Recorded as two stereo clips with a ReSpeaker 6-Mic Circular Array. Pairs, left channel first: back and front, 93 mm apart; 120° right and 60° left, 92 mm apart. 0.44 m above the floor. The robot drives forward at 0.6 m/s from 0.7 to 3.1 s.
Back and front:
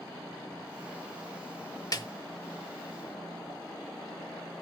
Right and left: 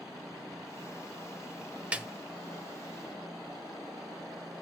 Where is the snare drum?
135° left, 0.9 m; by 2.1 s 140° left, 1.0 m.